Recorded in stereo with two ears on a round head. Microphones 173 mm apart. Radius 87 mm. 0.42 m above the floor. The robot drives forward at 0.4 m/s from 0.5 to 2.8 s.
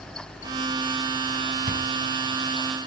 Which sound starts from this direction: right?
Chewing, at 1.7 s.